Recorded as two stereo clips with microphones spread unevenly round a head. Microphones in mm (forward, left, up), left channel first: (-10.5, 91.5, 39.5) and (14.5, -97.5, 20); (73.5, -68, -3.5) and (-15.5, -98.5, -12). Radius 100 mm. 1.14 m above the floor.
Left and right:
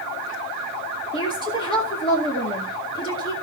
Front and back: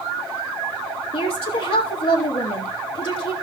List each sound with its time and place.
1.1 s a woman speaking: 30° left, 2 m